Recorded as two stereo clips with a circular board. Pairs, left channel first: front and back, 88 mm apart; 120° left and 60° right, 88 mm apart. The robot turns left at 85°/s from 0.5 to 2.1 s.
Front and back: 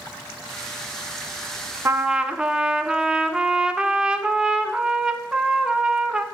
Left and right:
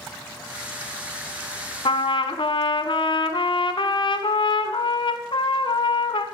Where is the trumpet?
120° left, 0.7 m; by 6.2 s 100° left, 0.7 m.